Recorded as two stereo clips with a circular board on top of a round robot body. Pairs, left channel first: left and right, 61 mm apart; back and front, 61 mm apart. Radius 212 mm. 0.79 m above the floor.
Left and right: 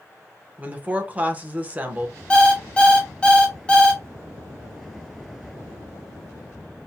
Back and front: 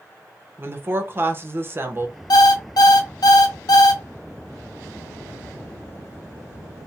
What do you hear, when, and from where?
0.6 s a woman speaking: 35° right, 1.1 m
2.3 s an alarm clock: 160° left, 0.6 m